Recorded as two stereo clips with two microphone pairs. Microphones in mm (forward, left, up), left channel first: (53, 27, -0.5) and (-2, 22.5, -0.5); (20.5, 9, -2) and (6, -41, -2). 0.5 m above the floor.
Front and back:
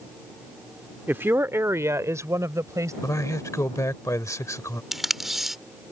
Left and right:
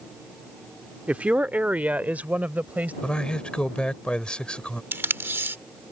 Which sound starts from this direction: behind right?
A woman speaking, at 1.1 s.